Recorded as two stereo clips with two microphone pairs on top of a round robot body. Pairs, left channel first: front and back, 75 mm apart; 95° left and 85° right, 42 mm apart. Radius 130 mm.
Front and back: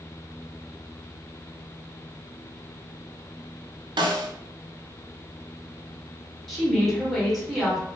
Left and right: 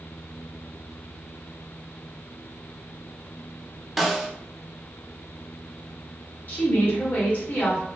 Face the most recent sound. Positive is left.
turn(degrees=90)